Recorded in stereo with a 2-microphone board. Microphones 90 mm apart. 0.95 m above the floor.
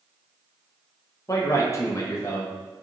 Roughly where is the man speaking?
Left.